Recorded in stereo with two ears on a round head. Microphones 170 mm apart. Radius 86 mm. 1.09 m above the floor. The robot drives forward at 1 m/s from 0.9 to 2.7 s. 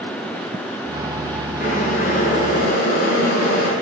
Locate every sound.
1.6 s boiling: 35° left (ahead or behind), 5.5 m; by 3.7 s 45° left (ahead or behind), 4.5 m